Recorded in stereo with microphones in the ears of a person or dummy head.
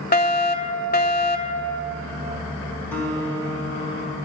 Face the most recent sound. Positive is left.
turn(degrees=10)  # may be behind; listen again after turning